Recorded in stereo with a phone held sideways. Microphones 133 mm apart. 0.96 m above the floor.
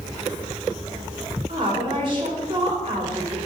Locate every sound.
1.5 s a woman speaking: 40° right (ahead or behind), 2.5 m